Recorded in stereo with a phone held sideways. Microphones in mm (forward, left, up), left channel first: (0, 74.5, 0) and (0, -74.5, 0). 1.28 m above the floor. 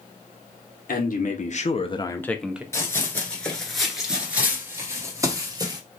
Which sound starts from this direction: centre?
Running footsteps, at 2.7 s.